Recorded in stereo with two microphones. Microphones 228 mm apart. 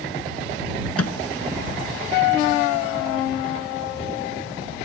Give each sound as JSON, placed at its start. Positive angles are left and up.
{"t": 1.0, "sound": "a microwave", "side_deg": 75}